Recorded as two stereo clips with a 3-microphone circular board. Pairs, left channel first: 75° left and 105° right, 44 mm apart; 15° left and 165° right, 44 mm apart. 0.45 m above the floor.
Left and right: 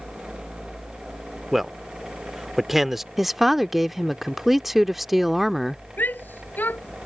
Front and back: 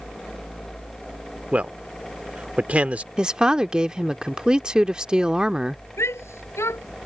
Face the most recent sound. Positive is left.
turn(degrees=25)